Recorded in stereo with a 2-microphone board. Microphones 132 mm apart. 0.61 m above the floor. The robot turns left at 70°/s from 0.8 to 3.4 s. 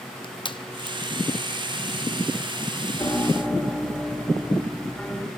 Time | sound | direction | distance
0.2 | crushing | 35° left (ahead or behind) | 0.8 m
3.0 | a piano | 25° left (ahead or behind) | 1.7 m